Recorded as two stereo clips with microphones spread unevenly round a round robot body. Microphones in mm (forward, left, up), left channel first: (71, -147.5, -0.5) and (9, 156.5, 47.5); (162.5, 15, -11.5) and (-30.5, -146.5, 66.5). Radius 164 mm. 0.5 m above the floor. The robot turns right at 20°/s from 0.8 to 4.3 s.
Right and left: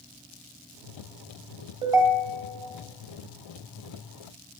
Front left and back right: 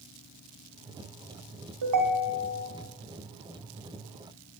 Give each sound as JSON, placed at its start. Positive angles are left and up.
{"t": 1.8, "sound": "a ringtone", "azimuth_deg": 180, "distance_m": 1.0}